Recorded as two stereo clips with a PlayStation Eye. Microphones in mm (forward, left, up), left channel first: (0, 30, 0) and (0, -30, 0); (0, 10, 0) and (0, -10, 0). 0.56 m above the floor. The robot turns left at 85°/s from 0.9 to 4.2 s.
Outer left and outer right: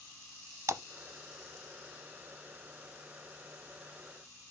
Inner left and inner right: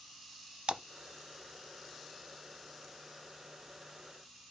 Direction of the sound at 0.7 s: 55° right (ahead or behind).